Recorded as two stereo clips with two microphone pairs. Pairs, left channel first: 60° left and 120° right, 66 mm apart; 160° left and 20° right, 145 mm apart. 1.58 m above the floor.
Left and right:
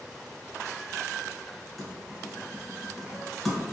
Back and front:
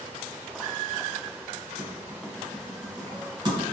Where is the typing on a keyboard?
30° right, 1.6 m.